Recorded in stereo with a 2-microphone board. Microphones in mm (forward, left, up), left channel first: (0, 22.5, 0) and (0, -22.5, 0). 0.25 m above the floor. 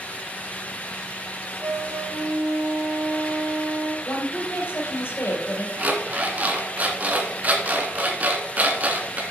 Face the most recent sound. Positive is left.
turn(degrees=-35)  # may be behind; listen again after turning